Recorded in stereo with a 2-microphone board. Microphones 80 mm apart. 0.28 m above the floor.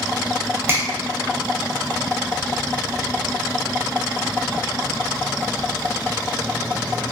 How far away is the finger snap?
About 0.8 m.